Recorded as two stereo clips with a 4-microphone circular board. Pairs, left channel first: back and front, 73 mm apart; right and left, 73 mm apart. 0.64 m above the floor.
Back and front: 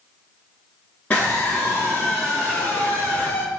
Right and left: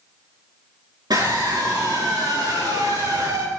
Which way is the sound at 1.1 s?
110° left.